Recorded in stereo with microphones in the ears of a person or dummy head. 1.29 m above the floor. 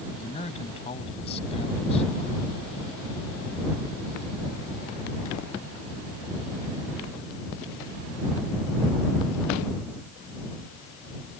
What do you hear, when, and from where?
0.2 s a man speaking: 35° left (ahead or behind)